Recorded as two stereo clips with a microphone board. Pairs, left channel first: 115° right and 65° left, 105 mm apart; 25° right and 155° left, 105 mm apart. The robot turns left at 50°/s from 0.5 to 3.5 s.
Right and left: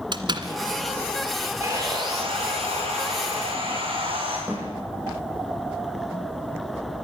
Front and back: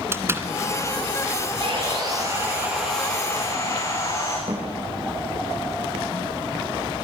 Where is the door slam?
95° left, 1.5 m.